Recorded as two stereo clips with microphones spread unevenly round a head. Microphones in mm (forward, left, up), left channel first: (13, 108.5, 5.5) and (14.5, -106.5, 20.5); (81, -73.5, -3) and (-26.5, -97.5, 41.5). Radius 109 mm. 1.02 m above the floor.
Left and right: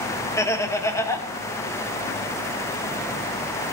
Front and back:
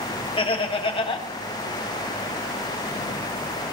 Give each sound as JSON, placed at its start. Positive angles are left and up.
{"t": 0.4, "sound": "laughter", "azimuth_deg": 15, "distance_m": 1.6}